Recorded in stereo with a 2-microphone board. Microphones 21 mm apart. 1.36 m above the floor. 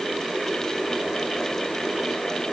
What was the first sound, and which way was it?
Only background noise.